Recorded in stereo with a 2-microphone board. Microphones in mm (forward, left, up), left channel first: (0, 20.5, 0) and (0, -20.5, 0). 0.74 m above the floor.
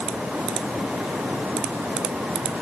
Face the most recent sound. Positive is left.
No sound to turn to.